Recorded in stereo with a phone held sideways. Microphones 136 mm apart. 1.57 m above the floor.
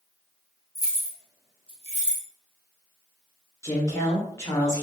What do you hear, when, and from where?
0.8 s keys jangling: 30° left (ahead or behind), 0.8 m; by 2.2 s 65° right (ahead or behind), 1.0 m
3.6 s a woman speaking: 20° left (ahead or behind), 1.4 m